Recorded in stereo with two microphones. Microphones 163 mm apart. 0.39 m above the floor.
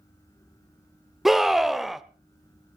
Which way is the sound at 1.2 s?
Centre (ahead or behind).